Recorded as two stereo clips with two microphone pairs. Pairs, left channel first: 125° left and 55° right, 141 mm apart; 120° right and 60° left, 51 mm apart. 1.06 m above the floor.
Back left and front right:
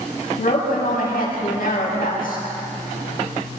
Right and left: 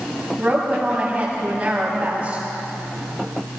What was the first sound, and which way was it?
A woman speaking, 125° left.